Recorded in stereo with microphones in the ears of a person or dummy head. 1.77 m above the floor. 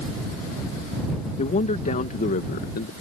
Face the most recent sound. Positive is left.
turn(degrees=55)  # may be behind; listen again after turning